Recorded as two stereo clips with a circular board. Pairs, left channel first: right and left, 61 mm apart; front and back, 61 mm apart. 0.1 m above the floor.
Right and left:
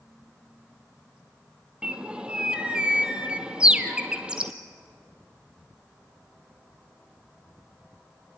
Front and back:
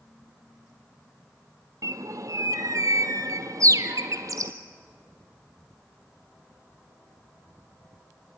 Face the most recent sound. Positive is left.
turn(degrees=165)